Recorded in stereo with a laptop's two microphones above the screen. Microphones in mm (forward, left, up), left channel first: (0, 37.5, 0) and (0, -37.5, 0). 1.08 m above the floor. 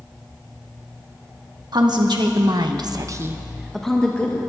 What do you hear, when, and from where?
1.7 s a woman speaking: 75° right (ahead or behind), 1.9 m; by 4.4 s 25° left (ahead or behind), 1.5 m